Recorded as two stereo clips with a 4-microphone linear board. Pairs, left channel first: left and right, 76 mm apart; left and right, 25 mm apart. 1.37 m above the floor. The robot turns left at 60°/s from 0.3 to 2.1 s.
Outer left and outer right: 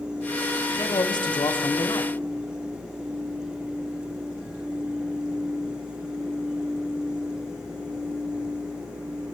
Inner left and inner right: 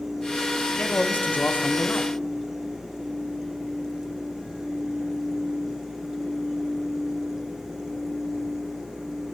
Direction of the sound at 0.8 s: 125° left.